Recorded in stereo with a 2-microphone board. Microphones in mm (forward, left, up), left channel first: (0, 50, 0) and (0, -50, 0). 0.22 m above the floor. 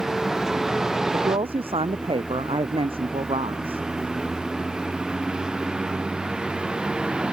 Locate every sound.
0.0 s a vehicle: 5° right (ahead or behind); by 7.3 s 10° right (ahead or behind)
1.1 s a woman speaking: 80° right